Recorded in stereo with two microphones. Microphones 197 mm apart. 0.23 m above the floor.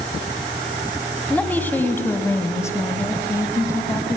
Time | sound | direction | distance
1.3 | a woman speaking | 10° left (ahead or behind) | 2.0 m